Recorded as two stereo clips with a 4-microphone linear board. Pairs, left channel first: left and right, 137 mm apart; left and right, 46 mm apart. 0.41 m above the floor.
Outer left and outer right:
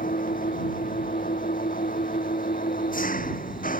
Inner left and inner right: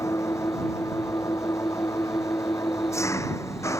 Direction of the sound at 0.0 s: 80° left.